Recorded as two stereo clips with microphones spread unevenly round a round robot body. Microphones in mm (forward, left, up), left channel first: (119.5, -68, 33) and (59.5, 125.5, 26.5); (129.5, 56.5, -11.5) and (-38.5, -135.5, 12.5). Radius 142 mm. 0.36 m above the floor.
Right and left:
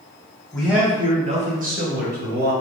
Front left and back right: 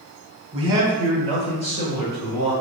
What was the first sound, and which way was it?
A man speaking, 160° right.